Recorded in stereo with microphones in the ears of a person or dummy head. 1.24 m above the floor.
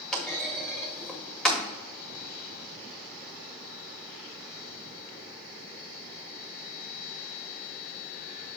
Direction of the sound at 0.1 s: 10° left (ahead or behind).